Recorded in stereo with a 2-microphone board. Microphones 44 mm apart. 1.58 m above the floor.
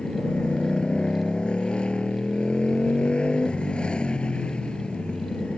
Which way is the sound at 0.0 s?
25° left (ahead or behind).